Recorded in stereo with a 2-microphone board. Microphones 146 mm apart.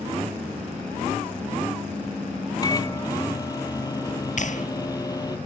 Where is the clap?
60° left (ahead or behind).